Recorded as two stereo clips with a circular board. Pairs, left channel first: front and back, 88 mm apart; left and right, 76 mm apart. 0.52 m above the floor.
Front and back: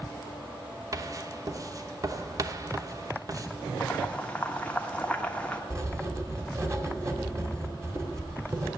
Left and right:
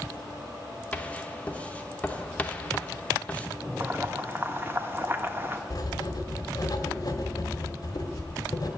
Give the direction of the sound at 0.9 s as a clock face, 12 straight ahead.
7 o'clock.